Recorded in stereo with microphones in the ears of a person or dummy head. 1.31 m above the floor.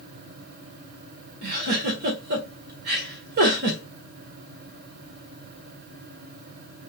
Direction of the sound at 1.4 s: 50° right (ahead or behind).